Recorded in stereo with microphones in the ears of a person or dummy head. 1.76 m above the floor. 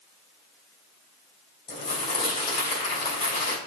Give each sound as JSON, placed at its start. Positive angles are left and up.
{"t": 1.7, "sound": "crumpling", "side_deg": 30, "distance_m": 3.0}